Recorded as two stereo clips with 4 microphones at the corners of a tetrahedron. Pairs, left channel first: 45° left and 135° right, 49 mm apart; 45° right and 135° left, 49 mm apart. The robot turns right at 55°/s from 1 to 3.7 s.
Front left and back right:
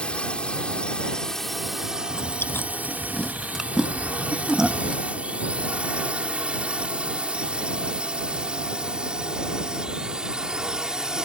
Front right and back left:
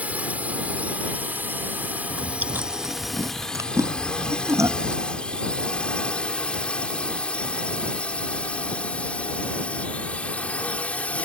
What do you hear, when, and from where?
0.0 s a drone: 100° left; by 11.3 s 75° right
2.1 s chewing: 60° left; by 5.0 s 150° left